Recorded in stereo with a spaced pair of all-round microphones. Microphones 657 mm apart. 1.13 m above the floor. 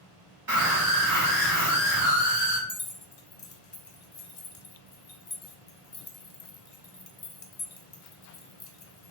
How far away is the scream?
About 1.6 m.